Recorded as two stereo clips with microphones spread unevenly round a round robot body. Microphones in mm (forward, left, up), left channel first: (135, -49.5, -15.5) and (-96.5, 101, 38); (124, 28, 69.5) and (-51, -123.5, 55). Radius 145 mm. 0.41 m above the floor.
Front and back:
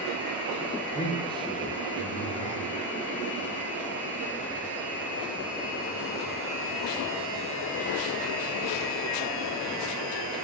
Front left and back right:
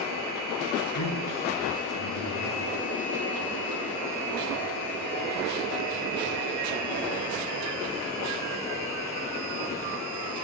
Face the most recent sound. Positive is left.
turn(degrees=35)